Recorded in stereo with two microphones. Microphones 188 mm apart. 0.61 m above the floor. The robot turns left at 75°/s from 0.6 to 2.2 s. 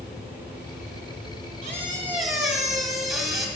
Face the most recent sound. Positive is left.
turn(degrees=180)